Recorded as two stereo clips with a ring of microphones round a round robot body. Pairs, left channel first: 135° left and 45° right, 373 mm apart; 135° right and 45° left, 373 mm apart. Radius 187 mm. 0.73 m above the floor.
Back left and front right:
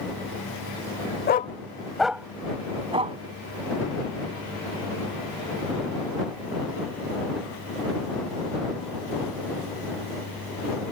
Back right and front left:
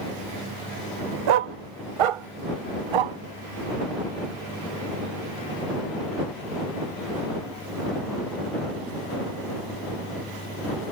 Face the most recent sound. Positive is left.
turn(degrees=30)